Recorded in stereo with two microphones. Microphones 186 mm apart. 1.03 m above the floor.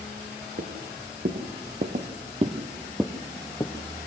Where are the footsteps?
60° right (ahead or behind), 2.5 m; by 4.1 s 30° left (ahead or behind), 1.6 m.